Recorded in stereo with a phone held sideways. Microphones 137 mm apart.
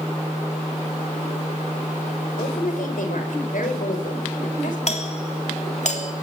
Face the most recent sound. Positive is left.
turn(degrees=55)  # may be behind; listen again after turning